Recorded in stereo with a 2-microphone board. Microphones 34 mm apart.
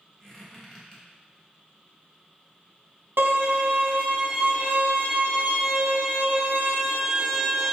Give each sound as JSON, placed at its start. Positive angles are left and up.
{"t": 0.2, "sound": "a squeak", "side_deg": 15, "distance_m": 1.2}
{"t": 3.2, "sound": "a violin", "side_deg": -75, "distance_m": 0.9}